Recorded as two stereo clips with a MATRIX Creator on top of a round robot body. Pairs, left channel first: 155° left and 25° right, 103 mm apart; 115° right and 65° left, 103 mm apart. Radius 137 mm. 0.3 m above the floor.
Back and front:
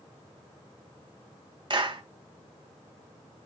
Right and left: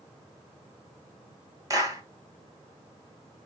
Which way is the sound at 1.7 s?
15° left.